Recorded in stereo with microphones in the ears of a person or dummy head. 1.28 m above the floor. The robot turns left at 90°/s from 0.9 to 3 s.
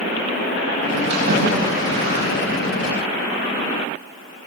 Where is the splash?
35° right (ahead or behind), 8.5 m.